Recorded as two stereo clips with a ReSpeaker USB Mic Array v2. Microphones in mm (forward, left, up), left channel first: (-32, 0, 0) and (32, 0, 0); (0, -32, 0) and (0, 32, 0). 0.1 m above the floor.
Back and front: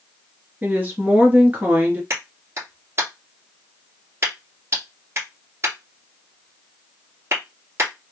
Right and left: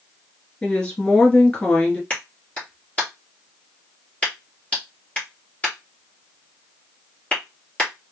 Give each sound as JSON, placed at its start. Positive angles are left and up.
{"t": 0.6, "sound": "a woman speaking", "azimuth_deg": -35, "distance_m": 1.2}
{"t": 2.1, "sound": "a clap", "azimuth_deg": -30, "distance_m": 1.8}